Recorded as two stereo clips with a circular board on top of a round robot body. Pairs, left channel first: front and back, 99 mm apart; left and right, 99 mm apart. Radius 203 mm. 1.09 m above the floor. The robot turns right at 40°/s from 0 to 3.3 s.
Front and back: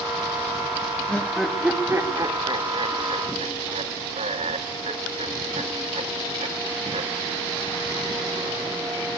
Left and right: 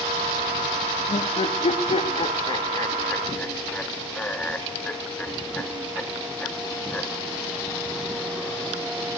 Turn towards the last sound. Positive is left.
turn(degrees=165)